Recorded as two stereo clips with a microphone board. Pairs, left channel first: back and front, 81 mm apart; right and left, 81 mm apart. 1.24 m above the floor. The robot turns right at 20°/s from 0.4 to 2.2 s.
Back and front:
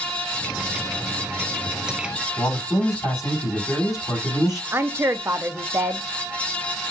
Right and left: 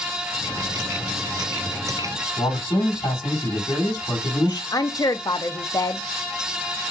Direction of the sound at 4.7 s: 55° right.